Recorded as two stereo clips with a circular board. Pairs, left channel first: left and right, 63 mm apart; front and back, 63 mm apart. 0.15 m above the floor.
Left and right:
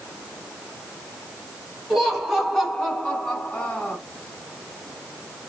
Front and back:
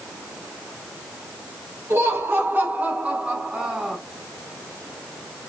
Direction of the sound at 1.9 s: 175° right.